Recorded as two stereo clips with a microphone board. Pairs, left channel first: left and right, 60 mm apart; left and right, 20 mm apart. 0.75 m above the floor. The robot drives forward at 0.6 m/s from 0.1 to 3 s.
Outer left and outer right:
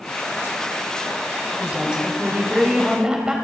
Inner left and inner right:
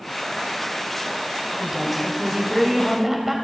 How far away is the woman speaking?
About 3.5 m.